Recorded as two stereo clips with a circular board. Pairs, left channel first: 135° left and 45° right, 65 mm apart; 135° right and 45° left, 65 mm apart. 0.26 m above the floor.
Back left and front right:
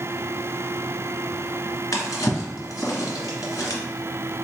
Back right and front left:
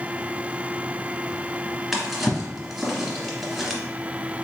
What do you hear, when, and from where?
1.9 s a drawer: 135° left, 1.2 m